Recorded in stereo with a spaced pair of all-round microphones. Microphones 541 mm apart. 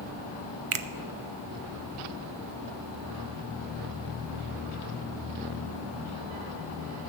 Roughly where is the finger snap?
Right.